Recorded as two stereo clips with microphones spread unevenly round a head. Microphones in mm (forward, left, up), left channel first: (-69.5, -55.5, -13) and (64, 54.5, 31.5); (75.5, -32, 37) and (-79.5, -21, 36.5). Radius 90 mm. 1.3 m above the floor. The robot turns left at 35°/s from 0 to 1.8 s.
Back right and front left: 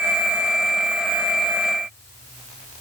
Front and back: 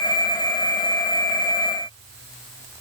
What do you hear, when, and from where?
Only background noise.